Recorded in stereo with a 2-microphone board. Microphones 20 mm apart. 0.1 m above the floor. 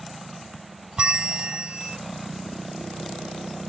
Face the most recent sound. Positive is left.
turn(degrees=-45)  # may be behind; listen again after turning